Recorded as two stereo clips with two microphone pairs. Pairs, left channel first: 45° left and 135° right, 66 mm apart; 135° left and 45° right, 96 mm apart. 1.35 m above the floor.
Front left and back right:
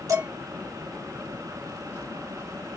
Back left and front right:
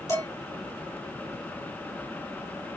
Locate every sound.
0.1 s dishes clattering: 165° right, 3 m